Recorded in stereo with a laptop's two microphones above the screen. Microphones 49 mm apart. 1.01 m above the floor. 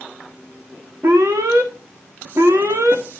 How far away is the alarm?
About 1.5 m.